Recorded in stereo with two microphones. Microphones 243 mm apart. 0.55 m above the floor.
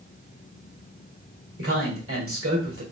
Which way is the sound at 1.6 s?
65° right (ahead or behind).